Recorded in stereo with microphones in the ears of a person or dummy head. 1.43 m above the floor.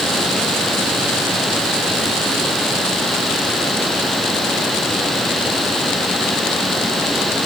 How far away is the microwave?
No microwave in this recording.